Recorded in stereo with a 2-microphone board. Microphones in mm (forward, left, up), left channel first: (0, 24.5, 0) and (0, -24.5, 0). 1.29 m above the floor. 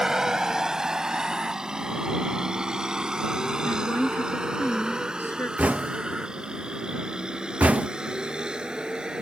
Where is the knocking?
30° right (ahead or behind).